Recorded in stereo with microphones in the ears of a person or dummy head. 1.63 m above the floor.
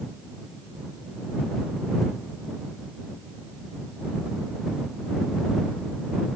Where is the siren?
No siren in this recording.